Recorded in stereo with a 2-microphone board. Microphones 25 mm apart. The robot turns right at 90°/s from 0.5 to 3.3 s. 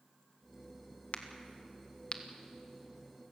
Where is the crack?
55° left (ahead or behind), 1.4 m; by 2.2 s 25° left (ahead or behind), 1.4 m.